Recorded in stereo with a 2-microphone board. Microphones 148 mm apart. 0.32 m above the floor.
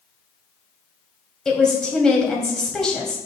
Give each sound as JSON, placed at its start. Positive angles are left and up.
{"t": 1.4, "sound": "a woman speaking", "side_deg": 5, "distance_m": 1.8}